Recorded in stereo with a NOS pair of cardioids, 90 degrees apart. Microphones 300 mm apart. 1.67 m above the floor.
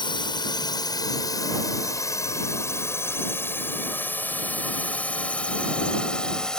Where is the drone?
15° left; by 6.6 s straight ahead.